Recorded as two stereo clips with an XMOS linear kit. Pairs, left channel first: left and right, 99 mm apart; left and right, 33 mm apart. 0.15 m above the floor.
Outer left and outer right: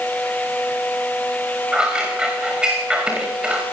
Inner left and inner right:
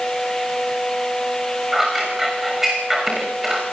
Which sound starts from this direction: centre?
Scissors, at 1.7 s.